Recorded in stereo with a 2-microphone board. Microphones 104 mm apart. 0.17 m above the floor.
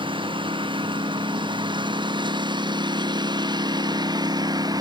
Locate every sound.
0.0 s a lawn mower: 55° right (ahead or behind); by 4.8 s 40° right (ahead or behind)